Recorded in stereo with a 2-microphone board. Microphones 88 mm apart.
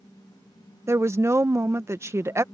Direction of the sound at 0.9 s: 30° right (ahead or behind).